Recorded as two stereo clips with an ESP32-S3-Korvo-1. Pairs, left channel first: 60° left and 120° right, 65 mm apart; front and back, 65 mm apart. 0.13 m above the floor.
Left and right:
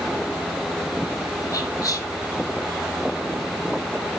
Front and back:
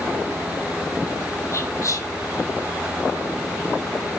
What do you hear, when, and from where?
1.5 s whispering: 35° left, 4.5 m